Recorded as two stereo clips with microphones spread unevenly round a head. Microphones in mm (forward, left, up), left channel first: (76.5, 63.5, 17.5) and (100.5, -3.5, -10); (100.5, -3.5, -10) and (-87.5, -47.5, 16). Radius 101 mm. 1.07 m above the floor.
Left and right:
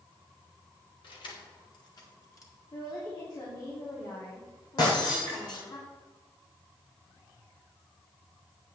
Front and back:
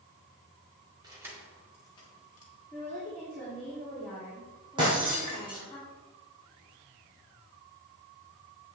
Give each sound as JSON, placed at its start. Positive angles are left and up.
{"t": 1.0, "sound": "keys jangling", "azimuth_deg": 120, "distance_m": 2.0}
{"t": 2.7, "sound": "a woman speaking", "azimuth_deg": 95, "distance_m": 3.0}
{"t": 4.8, "sound": "breaking glass", "azimuth_deg": 125, "distance_m": 4.5}